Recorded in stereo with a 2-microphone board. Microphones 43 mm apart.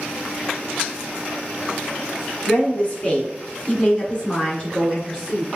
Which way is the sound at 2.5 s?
30° left (ahead or behind).